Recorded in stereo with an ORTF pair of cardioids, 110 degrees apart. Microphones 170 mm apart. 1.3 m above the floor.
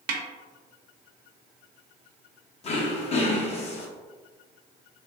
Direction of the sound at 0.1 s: 70° right.